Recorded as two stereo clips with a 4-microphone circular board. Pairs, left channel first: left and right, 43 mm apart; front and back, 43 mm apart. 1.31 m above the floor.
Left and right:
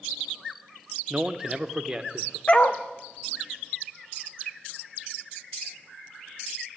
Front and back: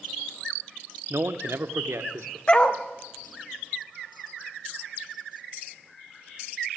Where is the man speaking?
160° right, 0.6 m; by 2.4 s 175° right, 1.2 m.